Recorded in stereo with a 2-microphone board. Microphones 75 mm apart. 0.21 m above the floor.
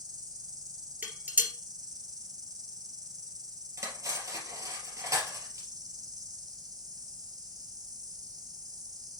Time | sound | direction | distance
0.0 | an insect | 60° right (ahead or behind) | 2 m
1.0 | dishes clattering | 25° right (ahead or behind) | 2.5 m
3.8 | cutlery clinking | 45° right (ahead or behind) | 3 m